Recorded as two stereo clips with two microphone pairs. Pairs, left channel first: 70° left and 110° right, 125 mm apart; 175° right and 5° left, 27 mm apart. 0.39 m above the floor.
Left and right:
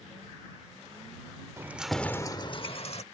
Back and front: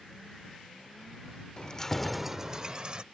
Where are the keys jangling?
170° right; by 3.0 s 55° left.